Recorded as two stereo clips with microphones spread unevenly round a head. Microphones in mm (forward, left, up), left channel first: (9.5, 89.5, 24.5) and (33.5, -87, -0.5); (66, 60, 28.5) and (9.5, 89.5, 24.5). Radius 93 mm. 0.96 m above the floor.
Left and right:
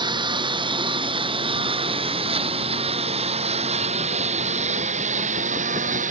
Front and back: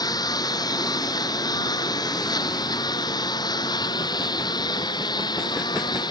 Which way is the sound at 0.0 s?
15° right.